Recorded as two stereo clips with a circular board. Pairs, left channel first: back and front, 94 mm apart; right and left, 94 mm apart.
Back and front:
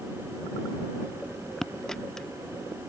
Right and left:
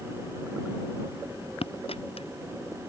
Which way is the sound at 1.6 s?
95° right.